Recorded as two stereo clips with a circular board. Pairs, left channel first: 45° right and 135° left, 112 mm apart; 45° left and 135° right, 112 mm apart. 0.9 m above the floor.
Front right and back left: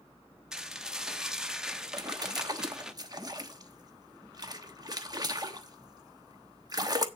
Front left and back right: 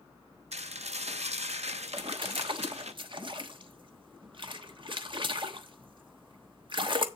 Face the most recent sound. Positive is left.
turn(degrees=-175)